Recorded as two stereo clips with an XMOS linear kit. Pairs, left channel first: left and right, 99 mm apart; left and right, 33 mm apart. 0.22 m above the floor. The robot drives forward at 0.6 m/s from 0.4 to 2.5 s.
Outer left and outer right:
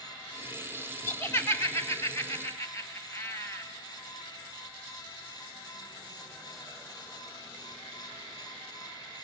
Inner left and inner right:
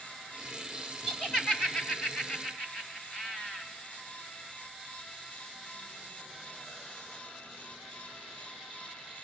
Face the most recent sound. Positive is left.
turn(degrees=30)  # may be behind; listen again after turning